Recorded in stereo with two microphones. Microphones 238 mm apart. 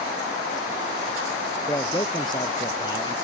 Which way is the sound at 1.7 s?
20° left (ahead or behind).